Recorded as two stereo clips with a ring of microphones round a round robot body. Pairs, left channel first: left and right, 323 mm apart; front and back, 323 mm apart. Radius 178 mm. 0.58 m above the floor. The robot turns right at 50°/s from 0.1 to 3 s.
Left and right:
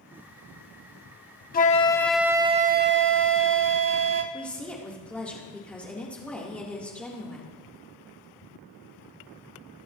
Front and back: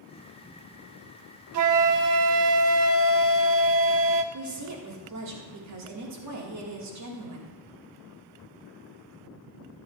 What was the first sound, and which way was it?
A flute, 150° left.